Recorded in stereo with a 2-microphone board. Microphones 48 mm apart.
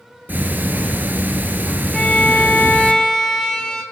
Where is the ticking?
40° right (ahead or behind), 1.4 m.